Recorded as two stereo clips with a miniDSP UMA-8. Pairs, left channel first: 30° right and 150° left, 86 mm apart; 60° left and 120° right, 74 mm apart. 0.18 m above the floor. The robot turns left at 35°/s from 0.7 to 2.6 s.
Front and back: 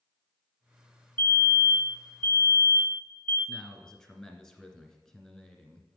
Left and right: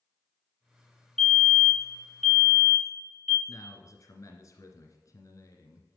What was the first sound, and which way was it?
A fire alarm, 10° right.